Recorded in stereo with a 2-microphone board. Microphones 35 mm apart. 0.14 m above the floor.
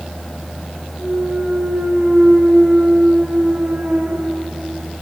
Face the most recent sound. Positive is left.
turn(degrees=-55)  # may be behind; listen again after turning